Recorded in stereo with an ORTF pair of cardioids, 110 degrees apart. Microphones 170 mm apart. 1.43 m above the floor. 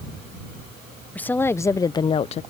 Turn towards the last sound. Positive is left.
turn(degrees=45)